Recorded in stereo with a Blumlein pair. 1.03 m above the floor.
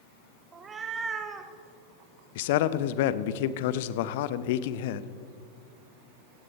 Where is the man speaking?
50° left, 0.7 m.